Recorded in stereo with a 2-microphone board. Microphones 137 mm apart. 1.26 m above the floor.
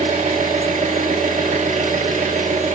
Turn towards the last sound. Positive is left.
turn(degrees=-60)  # may be behind; listen again after turning